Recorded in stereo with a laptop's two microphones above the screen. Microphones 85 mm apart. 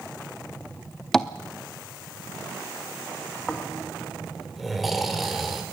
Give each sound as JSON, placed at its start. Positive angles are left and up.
{"t": 1.1, "sound": "tapping", "side_deg": 5, "distance_m": 0.6}
{"t": 3.5, "sound": "snoring", "side_deg": 0, "distance_m": 3.0}